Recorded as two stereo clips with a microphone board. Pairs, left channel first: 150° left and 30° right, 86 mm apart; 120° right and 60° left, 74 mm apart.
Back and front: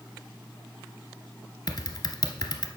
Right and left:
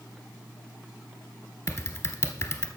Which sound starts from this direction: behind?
Typing on a keyboard, at 1.7 s.